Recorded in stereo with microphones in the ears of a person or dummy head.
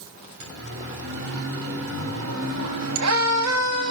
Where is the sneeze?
No sneeze in this recording.